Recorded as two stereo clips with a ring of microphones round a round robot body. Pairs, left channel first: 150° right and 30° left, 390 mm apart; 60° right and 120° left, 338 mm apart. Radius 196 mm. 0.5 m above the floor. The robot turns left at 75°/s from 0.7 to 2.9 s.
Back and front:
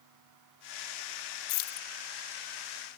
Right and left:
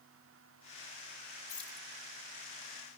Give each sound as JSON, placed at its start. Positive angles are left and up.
{"t": 1.5, "sound": "keys jangling", "azimuth_deg": -140, "distance_m": 0.6}